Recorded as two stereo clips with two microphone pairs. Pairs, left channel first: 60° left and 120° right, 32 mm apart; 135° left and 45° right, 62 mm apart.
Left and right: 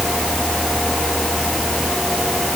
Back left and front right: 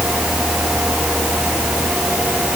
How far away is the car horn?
I don't hear a car horn.